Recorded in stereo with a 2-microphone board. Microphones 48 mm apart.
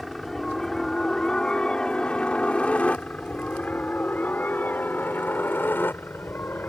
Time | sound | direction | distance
0.0 | a helicopter | 5° left (ahead or behind) | ?